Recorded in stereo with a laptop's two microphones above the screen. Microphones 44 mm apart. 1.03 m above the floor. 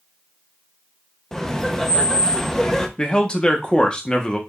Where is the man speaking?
20° left (ahead or behind), 0.8 m.